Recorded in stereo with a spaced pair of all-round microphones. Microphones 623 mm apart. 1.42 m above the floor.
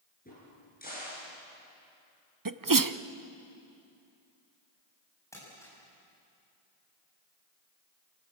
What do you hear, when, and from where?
0.2 s a crack: 15° left (ahead or behind), 7.5 m
2.5 s a sneeze: 35° right (ahead or behind), 0.7 m
5.3 s crumpling: 5° left (ahead or behind), 8 m